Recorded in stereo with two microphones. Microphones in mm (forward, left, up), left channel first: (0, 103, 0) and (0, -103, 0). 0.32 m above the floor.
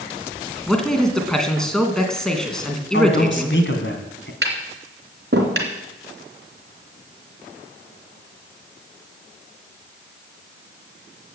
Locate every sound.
0.7 s a man speaking: 5° left (ahead or behind), 2.5 m
2.9 s a man speaking: 65° left (ahead or behind), 2.5 m
4.4 s tapping: 55° right (ahead or behind), 3 m